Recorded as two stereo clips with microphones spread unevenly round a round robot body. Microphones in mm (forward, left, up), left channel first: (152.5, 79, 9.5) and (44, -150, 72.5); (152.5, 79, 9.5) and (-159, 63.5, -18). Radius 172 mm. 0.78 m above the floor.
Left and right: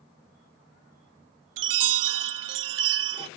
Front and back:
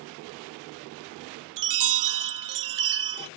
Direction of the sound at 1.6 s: 135° right.